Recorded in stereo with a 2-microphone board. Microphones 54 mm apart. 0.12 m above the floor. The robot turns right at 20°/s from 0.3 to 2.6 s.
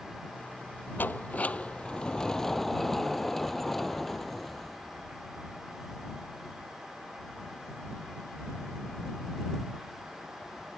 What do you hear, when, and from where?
1.0 s a sliding door: 145° left; by 5.2 s 175° left